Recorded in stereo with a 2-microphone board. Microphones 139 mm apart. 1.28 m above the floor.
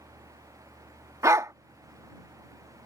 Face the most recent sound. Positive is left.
turn(degrees=-20)  # may be behind; listen again after turning